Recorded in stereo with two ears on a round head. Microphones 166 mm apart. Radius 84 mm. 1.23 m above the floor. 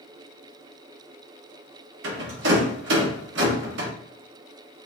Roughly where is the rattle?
Right.